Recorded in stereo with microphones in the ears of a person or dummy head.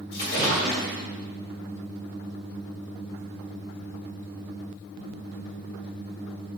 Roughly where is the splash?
Left.